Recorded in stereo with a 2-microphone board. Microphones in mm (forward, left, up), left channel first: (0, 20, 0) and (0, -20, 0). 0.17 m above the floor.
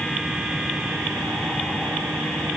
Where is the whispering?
No whispering in this recording.